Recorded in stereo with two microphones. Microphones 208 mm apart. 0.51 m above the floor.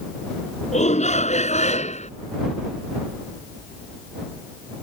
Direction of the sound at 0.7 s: 35° left (ahead or behind).